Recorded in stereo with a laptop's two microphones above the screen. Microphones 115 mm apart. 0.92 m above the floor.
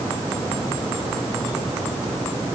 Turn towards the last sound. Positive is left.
No sound to turn to.